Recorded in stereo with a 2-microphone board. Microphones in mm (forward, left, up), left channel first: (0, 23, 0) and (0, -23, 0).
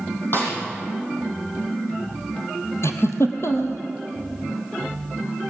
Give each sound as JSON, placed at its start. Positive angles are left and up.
{"t": 0.3, "sound": "a snare drum", "side_deg": 50, "distance_m": 7.0}
{"t": 2.8, "sound": "a giggle", "side_deg": 65, "distance_m": 2.0}